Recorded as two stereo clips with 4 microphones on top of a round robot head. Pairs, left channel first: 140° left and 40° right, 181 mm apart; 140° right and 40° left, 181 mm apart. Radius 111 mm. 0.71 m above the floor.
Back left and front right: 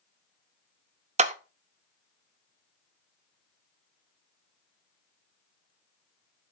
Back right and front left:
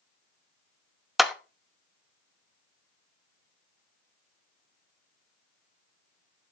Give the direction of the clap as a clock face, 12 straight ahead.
2 o'clock.